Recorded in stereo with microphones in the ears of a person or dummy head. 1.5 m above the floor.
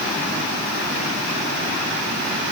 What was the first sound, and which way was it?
Only background noise.